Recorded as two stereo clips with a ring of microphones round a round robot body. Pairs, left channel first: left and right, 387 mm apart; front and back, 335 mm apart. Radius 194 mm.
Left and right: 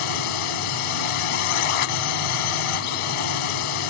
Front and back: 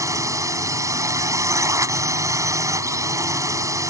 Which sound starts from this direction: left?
A drone, at 0.0 s.